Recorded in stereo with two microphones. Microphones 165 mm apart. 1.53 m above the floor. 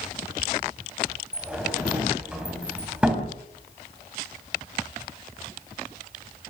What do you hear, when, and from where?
1.3 s a sliding door: 5° right (ahead or behind), 3.5 m